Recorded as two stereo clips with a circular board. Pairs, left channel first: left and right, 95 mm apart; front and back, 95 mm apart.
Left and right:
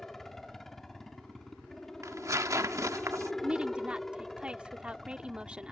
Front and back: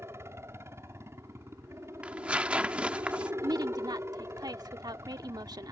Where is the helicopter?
175° left.